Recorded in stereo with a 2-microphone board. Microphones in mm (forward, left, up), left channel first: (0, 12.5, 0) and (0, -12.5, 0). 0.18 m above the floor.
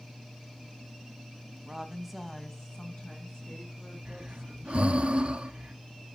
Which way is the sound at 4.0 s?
60° right (ahead or behind).